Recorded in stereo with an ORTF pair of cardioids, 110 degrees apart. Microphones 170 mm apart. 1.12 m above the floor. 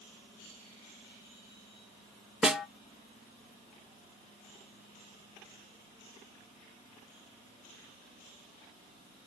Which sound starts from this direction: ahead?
A snare drum, at 2.4 s.